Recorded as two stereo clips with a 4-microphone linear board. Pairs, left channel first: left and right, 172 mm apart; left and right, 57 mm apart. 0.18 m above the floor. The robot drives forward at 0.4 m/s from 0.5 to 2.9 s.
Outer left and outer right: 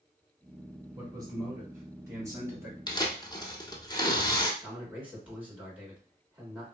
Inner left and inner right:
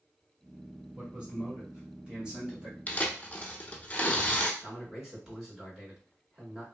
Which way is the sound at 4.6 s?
10° right (ahead or behind).